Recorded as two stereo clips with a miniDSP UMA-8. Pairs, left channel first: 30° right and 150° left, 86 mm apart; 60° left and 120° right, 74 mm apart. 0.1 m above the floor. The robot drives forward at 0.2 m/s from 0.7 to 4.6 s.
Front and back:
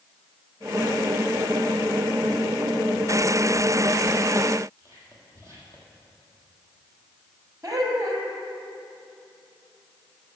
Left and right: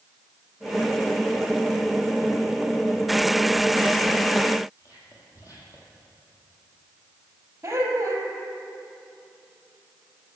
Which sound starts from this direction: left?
Whispering, at 4.8 s.